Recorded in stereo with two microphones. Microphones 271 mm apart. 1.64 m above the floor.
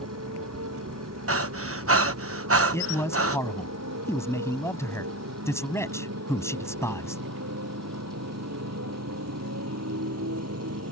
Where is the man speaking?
10° left (ahead or behind).